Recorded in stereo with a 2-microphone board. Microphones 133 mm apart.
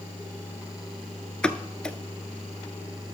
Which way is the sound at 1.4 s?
5° left (ahead or behind).